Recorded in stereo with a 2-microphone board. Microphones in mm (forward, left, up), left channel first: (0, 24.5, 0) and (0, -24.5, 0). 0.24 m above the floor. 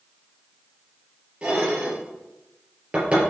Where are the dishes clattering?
20° right (ahead or behind), 3.5 m.